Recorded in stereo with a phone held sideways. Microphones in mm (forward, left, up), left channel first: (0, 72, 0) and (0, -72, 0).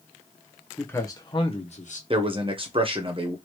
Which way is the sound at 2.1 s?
40° right (ahead or behind).